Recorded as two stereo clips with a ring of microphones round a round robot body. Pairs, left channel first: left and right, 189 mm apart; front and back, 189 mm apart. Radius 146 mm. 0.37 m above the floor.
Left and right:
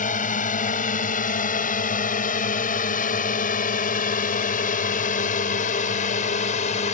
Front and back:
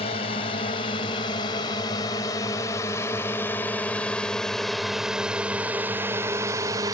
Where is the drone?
55° left; by 7.0 s 115° left.